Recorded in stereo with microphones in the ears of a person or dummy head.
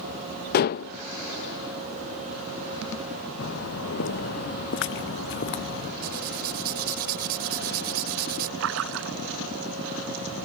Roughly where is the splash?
Right.